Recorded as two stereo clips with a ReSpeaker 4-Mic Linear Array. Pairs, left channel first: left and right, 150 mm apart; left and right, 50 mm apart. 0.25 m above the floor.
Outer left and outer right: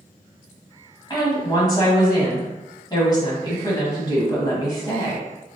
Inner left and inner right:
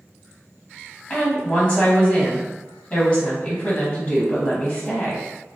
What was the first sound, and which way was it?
A woman speaking, 25° left (ahead or behind).